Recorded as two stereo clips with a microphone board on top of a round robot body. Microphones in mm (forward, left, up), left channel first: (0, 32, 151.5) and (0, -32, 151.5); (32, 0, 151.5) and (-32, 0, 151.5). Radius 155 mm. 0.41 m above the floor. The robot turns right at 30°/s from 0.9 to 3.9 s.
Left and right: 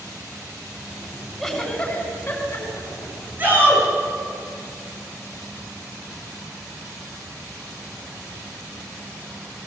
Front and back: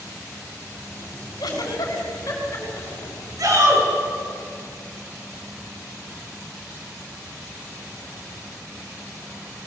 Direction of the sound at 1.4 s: 5° left.